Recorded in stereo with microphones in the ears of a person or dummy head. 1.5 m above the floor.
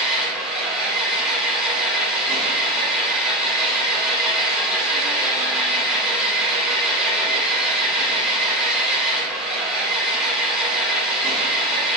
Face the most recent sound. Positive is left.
turn(degrees=-5)  # may be behind; listen again after turning